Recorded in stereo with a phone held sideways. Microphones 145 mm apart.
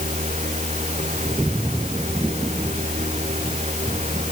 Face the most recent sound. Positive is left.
turn(degrees=-50)  # may be behind; listen again after turning